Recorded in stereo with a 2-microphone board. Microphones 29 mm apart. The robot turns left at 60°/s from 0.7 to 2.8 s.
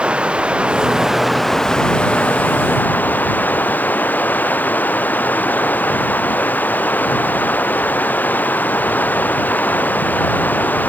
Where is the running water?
140° right; by 10.9 s 95° left.